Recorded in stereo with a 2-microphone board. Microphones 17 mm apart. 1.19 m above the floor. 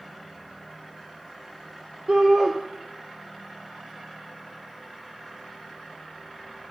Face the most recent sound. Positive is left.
turn(degrees=-45)  # may be behind; listen again after turning